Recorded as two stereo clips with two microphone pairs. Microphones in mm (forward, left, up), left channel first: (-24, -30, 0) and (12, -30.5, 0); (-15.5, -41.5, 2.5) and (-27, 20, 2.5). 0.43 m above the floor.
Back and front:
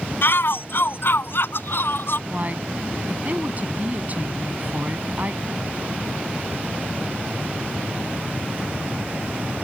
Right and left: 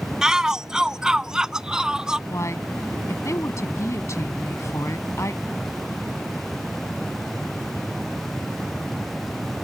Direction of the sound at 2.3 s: 45° right.